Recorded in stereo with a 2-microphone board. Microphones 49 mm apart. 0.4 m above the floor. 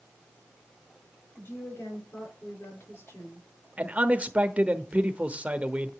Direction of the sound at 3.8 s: 25° right (ahead or behind).